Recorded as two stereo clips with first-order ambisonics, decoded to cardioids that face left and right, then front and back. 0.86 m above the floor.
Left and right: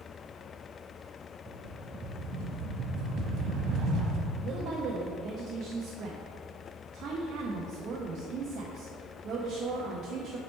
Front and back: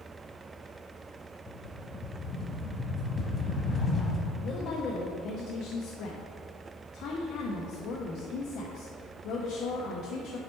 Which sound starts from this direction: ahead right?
A woman speaking, at 4.4 s.